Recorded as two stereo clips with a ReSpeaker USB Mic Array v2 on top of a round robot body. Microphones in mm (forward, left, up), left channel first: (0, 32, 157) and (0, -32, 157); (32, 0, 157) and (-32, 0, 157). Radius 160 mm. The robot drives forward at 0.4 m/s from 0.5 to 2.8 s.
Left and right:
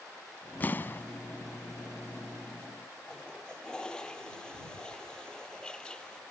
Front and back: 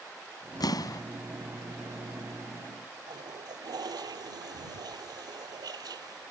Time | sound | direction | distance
0.6 | an explosion | 25° left | ?
3.1 | a toilet flushing | 165° left | ?